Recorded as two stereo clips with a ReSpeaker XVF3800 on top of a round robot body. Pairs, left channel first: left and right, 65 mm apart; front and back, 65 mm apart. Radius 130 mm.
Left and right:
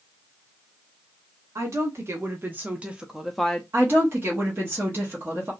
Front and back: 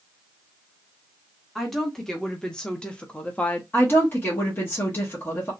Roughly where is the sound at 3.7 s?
Ahead right.